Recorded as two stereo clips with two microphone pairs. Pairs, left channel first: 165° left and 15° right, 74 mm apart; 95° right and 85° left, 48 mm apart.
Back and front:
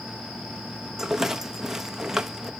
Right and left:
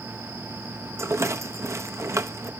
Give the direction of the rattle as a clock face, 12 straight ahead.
10 o'clock.